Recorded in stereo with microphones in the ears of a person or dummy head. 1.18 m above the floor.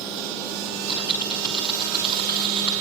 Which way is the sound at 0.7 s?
25° left (ahead or behind).